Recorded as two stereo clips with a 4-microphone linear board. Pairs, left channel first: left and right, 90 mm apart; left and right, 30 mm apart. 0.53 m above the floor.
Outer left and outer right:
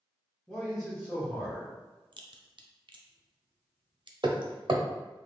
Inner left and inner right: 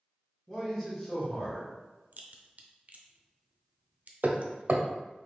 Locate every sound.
0.5 s a man speaking: centre (ahead or behind), 1.0 m
2.1 s a crack: 60° right (ahead or behind), 0.5 m
4.2 s hammering: 60° right (ahead or behind), 0.5 m